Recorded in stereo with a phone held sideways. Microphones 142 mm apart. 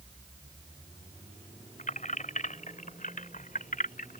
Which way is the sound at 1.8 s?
60° left (ahead or behind).